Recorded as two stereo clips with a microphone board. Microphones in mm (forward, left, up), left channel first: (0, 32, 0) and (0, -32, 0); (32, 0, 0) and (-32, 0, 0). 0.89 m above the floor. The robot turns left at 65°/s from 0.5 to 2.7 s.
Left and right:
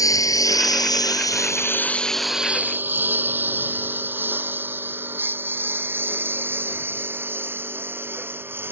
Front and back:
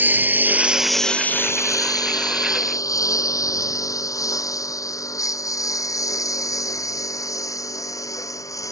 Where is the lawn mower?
120° left; by 8.7 s 35° right.